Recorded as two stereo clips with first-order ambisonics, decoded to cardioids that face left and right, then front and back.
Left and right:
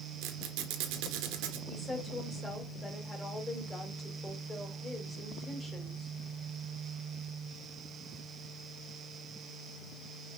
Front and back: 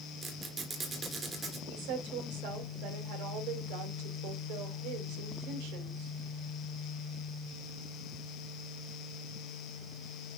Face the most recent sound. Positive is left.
turn(degrees=160)